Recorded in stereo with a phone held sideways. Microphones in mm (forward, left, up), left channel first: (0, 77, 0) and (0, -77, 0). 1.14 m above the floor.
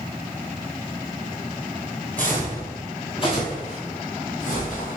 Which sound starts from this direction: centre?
Footsteps, at 2.2 s.